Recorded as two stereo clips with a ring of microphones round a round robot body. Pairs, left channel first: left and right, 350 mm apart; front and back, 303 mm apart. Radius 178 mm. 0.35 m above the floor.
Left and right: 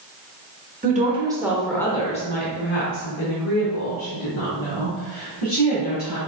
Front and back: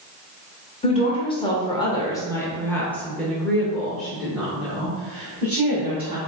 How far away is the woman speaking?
About 1.0 m.